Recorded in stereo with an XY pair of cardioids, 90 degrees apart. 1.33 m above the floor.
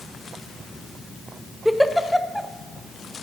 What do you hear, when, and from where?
1.6 s a giggle: straight ahead, 0.5 m